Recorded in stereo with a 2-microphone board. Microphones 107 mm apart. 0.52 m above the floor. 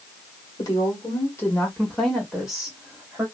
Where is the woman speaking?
40° left (ahead or behind), 1.5 m; by 3.2 s 15° right (ahead or behind), 1.7 m.